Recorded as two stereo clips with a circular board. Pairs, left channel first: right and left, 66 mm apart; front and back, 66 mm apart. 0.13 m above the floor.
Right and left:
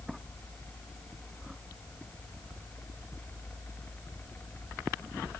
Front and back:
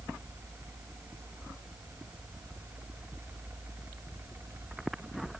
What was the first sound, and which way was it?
Only background noise.